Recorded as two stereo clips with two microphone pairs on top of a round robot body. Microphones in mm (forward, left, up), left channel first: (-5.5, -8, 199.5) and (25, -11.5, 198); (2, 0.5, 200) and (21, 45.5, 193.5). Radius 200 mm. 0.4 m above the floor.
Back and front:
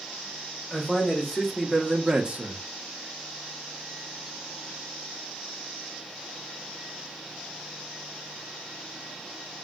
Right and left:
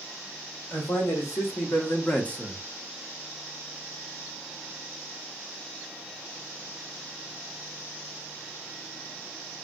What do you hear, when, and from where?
0.7 s a man speaking: 120° right, 2 m; by 2.7 s 10° right, 1.0 m